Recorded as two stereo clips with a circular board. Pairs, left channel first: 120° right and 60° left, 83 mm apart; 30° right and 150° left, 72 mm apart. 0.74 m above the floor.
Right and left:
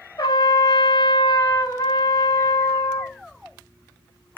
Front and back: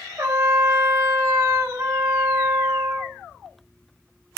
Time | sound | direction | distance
0.2 | a trumpet | 150° right | 0.6 m